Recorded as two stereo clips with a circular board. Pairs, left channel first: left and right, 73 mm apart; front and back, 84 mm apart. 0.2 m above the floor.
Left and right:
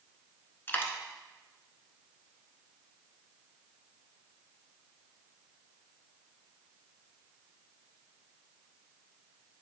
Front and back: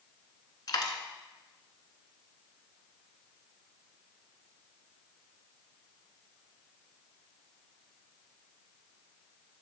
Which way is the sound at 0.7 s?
30° left.